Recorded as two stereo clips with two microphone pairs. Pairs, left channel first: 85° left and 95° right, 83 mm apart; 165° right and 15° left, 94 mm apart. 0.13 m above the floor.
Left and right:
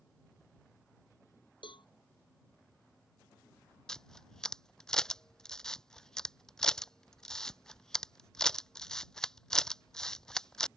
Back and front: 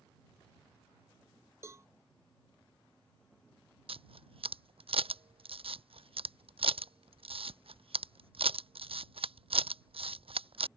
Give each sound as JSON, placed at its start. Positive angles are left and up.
{"t": 1.6, "sound": "a cowbell", "azimuth_deg": 75}
{"t": 3.9, "sound": "a camera shutter", "azimuth_deg": 5}